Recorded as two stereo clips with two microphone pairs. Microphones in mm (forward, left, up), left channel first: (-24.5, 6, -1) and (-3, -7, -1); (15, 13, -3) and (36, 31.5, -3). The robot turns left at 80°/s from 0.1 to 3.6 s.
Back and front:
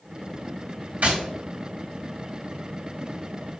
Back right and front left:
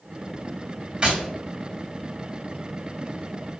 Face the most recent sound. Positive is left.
turn(degrees=135)